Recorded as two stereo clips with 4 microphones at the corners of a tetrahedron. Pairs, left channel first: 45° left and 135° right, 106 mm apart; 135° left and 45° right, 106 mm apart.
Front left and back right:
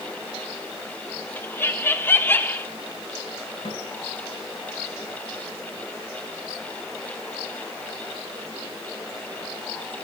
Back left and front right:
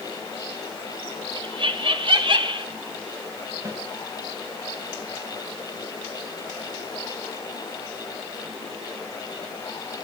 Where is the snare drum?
10° left, 6.5 m.